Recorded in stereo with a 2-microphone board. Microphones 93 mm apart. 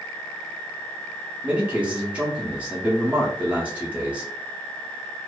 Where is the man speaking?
15° right (ahead or behind), 0.7 m.